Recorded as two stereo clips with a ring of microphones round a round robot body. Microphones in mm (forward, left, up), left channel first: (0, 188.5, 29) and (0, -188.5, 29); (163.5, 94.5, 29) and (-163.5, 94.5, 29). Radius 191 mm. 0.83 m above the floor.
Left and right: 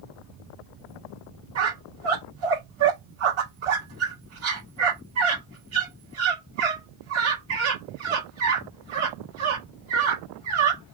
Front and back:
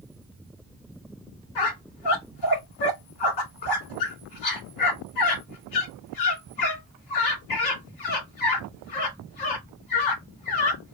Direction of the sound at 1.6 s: 35° right.